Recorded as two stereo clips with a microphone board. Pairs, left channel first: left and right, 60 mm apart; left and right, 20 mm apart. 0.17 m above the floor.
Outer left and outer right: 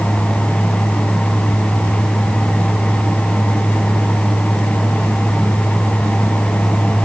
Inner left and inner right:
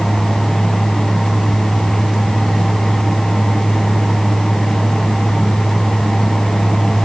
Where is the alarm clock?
I don't hear an alarm clock.